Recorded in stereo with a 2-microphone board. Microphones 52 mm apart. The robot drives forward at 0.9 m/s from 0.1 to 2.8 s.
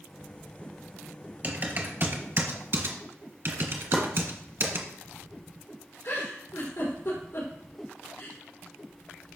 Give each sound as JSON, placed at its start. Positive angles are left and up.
{"t": 1.4, "sound": "typing on a keyboard", "side_deg": -35, "distance_m": 2.0}
{"t": 3.9, "sound": "chopping", "side_deg": 20, "distance_m": 2.5}
{"t": 6.0, "sound": "a giggle", "side_deg": 70, "distance_m": 4.5}